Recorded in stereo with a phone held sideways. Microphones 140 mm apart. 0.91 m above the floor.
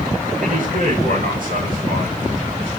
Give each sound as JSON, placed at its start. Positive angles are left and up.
{"t": 0.4, "sound": "a man speaking", "side_deg": -80, "distance_m": 4.5}